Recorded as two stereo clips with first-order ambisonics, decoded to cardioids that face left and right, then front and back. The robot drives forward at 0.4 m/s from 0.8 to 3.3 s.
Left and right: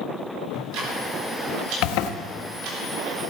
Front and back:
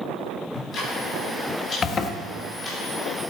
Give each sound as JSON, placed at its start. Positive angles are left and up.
{"t": 0.5, "sound": "ticking", "azimuth_deg": -65, "distance_m": 3.5}
{"t": 1.8, "sound": "a zipper", "azimuth_deg": 65, "distance_m": 0.9}